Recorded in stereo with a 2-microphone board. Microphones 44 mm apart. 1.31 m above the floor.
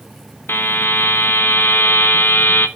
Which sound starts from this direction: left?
A buzzer, at 0.5 s.